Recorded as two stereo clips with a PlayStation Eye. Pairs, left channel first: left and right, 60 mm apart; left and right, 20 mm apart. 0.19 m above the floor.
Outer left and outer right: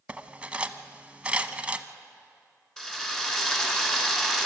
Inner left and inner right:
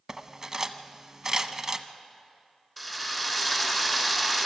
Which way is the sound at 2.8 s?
10° left (ahead or behind).